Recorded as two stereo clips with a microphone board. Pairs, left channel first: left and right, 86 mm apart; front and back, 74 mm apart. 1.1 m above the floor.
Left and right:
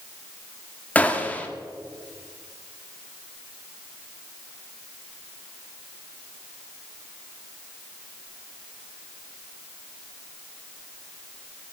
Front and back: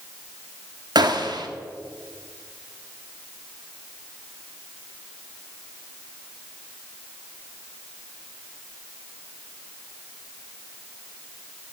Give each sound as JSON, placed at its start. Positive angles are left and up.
{"t": 0.9, "sound": "a gunshot", "azimuth_deg": 165, "distance_m": 1.3}